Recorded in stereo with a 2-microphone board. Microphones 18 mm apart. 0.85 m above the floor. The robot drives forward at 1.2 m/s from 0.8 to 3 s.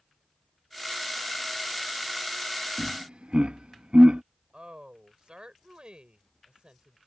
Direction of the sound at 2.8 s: 55° right (ahead or behind).